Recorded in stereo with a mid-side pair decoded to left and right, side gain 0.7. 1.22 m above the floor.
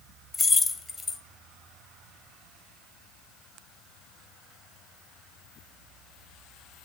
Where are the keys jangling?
25° left, 0.9 m.